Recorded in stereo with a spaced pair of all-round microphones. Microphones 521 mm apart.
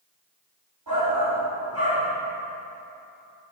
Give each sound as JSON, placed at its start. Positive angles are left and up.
{"t": 0.9, "sound": "a shout", "side_deg": -40, "distance_m": 4.0}